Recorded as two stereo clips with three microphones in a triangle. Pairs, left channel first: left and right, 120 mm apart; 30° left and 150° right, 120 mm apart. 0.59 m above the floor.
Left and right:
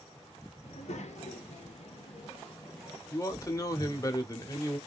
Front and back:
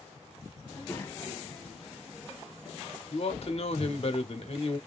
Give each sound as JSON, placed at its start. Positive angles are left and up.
{"t": 0.6, "sound": "a child speaking", "azimuth_deg": 90, "distance_m": 1.5}
{"t": 3.1, "sound": "a man speaking", "azimuth_deg": 35, "distance_m": 1.0}